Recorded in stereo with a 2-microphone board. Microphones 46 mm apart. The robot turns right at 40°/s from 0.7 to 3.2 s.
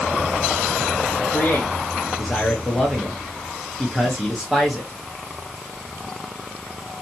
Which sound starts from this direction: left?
A man speaking, at 1.2 s.